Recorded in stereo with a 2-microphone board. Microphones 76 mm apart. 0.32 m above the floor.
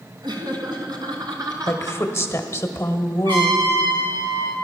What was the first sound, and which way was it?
Laughter, 65° right (ahead or behind).